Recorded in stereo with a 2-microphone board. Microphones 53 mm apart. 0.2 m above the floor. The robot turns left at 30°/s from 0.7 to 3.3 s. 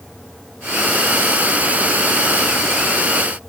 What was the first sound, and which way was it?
Only background noise.